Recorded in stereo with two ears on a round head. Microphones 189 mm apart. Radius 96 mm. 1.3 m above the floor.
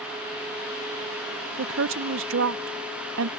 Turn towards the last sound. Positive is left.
turn(degrees=-60)  # may be behind; listen again after turning